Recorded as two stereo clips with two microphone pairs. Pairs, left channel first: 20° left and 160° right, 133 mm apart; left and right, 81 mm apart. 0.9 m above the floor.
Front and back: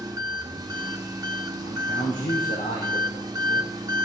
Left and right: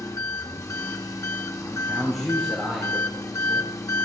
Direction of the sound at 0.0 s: 140° left.